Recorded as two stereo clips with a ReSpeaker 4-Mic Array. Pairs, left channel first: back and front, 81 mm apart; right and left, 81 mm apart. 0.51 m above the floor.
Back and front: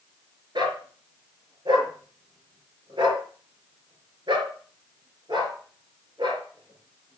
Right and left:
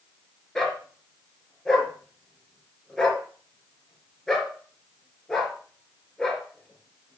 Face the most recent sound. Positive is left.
turn(degrees=-5)